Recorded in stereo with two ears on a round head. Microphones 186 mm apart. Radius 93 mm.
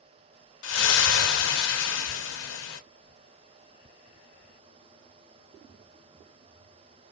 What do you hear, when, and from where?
0.6 s a splash: 65° left (ahead or behind), 1.1 m